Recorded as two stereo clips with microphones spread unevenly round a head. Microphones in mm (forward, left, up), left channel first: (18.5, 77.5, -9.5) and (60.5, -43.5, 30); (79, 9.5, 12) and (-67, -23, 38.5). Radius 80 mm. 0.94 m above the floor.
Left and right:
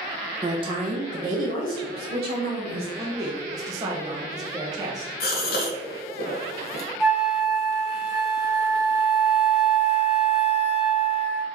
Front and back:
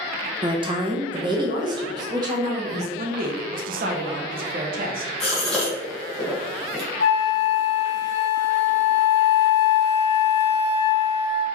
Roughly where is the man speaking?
Behind right.